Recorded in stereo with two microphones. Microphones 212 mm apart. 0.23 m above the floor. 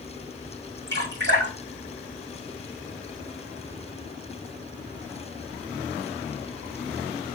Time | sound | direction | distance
0.9 | dripping | 55° right (ahead or behind) | 6 m